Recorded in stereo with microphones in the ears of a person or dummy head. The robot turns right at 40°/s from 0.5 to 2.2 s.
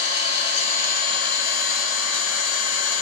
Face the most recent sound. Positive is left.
turn(degrees=105)